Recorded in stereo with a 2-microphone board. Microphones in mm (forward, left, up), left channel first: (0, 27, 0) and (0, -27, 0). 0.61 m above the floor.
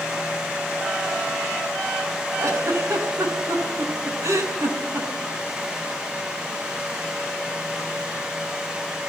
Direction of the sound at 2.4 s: 80° right.